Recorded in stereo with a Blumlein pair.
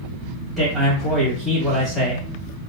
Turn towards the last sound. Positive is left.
turn(degrees=0)